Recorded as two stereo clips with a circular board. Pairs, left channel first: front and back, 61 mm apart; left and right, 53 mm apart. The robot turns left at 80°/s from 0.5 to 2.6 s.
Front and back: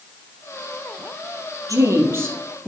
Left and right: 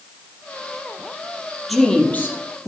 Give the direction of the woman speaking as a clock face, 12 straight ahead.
6 o'clock.